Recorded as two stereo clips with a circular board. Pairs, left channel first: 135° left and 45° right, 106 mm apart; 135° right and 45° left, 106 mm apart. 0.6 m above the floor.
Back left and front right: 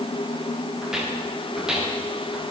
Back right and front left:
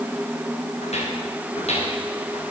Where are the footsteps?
130° right, 8 m.